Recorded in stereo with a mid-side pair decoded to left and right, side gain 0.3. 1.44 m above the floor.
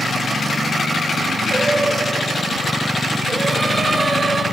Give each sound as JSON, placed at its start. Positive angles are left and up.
{"t": 1.5, "sound": "singing", "azimuth_deg": -50, "distance_m": 5.5}